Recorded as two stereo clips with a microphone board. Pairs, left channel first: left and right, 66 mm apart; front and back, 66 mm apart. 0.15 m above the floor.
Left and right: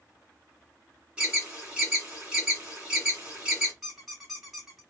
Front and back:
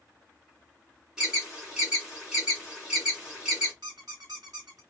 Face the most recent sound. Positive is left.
turn(degrees=-175)